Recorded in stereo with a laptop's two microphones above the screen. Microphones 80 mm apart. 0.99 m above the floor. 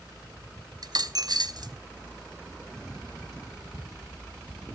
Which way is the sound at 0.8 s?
55° right (ahead or behind).